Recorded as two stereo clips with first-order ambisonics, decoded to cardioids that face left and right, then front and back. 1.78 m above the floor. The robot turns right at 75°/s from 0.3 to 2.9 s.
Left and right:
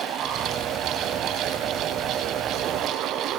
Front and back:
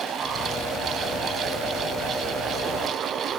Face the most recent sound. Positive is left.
No sound to turn to.